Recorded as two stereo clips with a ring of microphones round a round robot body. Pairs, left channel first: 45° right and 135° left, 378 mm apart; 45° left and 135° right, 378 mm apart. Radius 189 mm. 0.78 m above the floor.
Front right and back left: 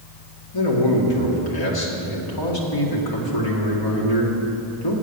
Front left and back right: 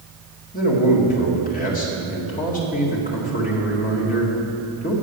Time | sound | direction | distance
0.5 | a man speaking | 25° right | 2.0 m